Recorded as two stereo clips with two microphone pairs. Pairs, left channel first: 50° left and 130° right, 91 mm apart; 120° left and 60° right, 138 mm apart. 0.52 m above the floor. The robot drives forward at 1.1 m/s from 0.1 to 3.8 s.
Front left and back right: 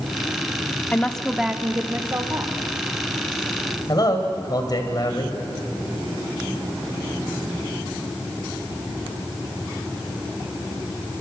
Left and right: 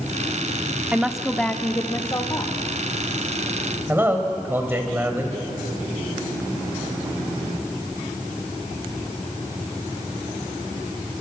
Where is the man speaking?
10° left, 3 m.